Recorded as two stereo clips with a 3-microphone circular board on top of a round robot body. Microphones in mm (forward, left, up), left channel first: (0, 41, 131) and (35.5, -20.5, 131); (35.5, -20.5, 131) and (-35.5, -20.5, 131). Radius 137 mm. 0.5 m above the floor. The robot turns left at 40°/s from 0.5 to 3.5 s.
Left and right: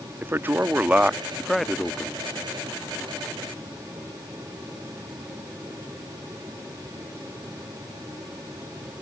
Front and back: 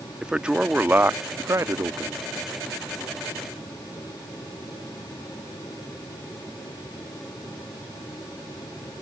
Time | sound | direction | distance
0.2 | a man speaking | 110° right | ?